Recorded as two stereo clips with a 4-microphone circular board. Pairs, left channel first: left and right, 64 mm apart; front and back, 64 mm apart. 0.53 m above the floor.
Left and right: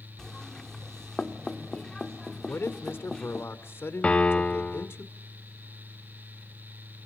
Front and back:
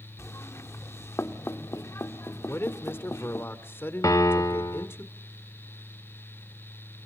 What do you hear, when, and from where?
0.2 s knocking: 10° left, 1.4 m
2.5 s a man speaking: 45° left, 1.8 m
4.0 s a piano: 20° left, 1.1 m